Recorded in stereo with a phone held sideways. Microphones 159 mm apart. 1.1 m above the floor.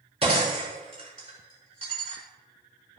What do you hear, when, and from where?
0.2 s breaking glass: 35° right (ahead or behind), 5.5 m